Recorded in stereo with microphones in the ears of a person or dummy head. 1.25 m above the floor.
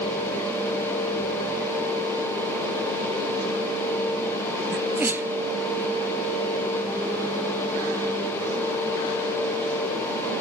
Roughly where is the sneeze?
Centre.